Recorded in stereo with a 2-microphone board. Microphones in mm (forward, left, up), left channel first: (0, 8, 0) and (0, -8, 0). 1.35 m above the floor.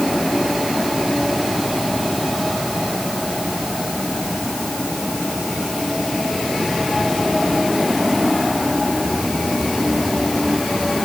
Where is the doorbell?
I don't hear a doorbell.